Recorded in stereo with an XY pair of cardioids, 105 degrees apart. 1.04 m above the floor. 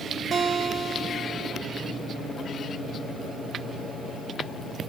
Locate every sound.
0.3 s a guitar: 45° right, 1.0 m